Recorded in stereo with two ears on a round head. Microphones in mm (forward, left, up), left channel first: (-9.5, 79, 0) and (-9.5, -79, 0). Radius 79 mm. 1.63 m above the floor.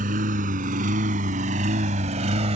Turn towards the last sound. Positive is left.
turn(degrees=-40)  # may be behind; listen again after turning